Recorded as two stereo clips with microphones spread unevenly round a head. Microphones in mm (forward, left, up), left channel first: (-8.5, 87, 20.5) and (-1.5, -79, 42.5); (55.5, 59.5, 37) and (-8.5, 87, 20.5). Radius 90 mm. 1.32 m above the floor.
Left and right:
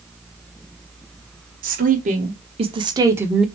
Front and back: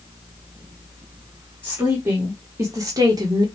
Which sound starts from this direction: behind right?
A woman speaking, at 1.6 s.